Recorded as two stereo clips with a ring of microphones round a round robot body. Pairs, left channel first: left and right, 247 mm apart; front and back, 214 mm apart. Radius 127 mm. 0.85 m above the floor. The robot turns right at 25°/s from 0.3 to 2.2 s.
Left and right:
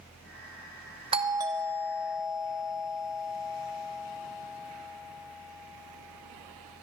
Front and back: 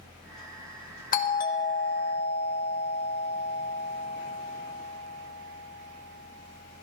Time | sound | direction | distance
1.1 | a doorbell | 30° right | 0.9 m